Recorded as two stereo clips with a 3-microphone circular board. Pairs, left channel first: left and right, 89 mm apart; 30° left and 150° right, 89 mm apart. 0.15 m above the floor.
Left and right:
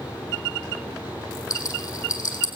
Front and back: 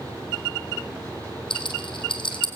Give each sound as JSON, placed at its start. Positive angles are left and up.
{"t": 1.5, "sound": "a rattle", "azimuth_deg": 40, "distance_m": 2.5}